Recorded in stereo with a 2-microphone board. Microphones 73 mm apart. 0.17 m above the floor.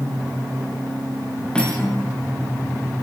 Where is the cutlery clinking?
15° left (ahead or behind), 9 m.